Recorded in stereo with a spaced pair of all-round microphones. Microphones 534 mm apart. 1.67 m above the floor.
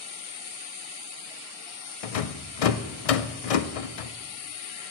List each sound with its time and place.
2.0 s a rattle: 80° left, 0.6 m